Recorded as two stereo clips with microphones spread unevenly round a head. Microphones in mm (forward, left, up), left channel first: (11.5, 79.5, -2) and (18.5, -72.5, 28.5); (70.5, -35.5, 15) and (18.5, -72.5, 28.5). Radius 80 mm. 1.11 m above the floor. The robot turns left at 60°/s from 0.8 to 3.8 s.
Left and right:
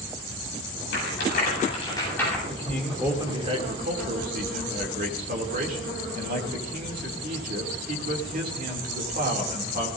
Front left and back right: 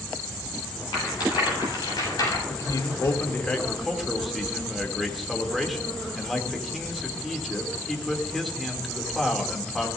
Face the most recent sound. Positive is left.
turn(degrees=-55)